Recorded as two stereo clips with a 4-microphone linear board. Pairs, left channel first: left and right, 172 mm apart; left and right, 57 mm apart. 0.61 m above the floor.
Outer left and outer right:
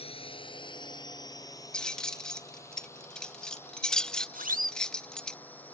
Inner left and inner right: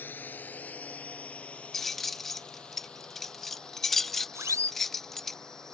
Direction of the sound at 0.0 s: 35° left (ahead or behind).